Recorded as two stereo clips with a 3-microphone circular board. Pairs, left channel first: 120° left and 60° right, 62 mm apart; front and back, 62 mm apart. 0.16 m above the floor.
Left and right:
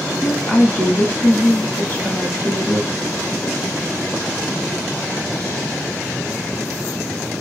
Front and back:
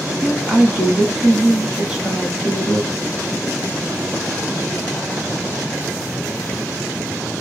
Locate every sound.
0.2 s a woman speaking: 105° left, 1.2 m